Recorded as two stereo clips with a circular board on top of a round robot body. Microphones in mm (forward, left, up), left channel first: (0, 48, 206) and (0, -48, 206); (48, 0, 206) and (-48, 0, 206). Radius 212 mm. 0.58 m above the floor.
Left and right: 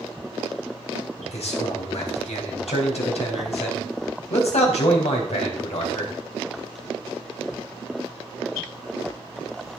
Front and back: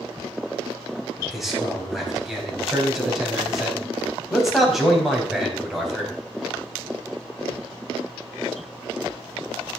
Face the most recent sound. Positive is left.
turn(degrees=90)